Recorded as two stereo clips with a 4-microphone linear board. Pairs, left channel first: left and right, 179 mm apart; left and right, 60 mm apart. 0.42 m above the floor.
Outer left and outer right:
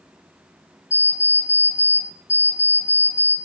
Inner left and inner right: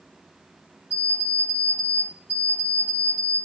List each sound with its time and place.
0.9 s an alarm clock: 40° left (ahead or behind), 0.9 m